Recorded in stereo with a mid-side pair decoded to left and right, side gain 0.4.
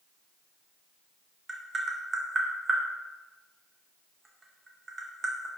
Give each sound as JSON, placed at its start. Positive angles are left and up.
{"t": 1.5, "sound": "tapping", "azimuth_deg": -35, "distance_m": 0.9}